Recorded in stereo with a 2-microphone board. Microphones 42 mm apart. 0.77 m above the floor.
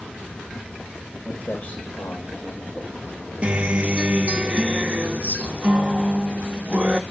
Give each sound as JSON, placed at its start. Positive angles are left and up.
{"t": 1.2, "sound": "footsteps", "side_deg": 35, "distance_m": 4.5}
{"t": 3.4, "sound": "a guitar", "side_deg": -30, "distance_m": 0.8}